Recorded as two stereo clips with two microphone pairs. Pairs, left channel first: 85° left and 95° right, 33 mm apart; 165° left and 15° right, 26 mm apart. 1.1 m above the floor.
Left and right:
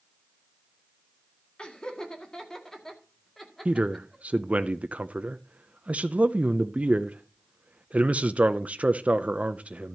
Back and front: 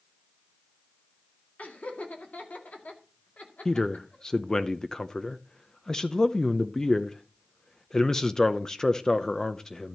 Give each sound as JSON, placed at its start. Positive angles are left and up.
{"t": 1.6, "sound": "laughter", "azimuth_deg": 150, "distance_m": 2.0}
{"t": 3.6, "sound": "a man speaking", "azimuth_deg": -135, "distance_m": 0.6}